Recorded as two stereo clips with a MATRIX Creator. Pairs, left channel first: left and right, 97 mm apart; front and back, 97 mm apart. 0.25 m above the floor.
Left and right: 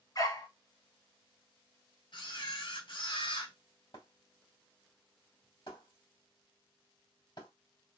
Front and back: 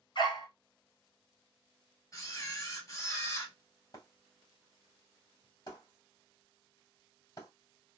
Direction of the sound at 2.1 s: 55° left.